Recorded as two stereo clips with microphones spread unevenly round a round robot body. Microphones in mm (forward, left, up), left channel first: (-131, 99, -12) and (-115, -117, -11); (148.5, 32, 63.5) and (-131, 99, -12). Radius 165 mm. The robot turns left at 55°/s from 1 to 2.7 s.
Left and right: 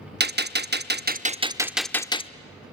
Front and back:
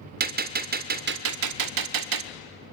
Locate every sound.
0.2 s a gunshot: 130° right, 0.7 m; by 2.3 s 155° left, 0.7 m